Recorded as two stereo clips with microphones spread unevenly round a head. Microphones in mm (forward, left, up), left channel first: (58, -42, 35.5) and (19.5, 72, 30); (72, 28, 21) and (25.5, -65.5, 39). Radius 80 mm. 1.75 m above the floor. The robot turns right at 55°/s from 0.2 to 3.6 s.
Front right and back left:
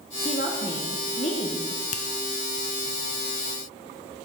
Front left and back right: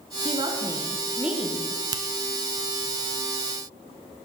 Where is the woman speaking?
105° right, 1.1 m; by 1.6 s 25° right, 1.1 m.